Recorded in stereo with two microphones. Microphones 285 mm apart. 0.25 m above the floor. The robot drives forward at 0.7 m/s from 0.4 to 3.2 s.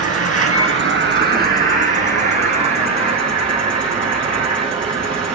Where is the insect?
50° right (ahead or behind), 1.2 m; by 5.3 s 20° right (ahead or behind), 3 m.